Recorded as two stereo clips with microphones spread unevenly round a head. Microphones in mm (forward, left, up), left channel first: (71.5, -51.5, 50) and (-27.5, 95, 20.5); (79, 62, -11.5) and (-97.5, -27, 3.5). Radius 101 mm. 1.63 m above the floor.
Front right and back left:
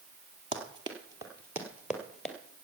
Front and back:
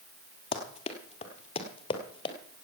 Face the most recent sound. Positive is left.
turn(degrees=-5)